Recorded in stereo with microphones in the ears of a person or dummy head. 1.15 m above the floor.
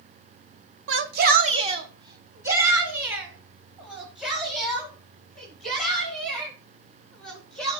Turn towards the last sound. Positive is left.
turn(degrees=0)  # may be behind; listen again after turning